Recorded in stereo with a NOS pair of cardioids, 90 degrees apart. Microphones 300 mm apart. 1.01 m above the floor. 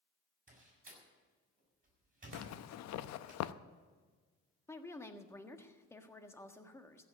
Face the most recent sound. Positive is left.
turn(degrees=10)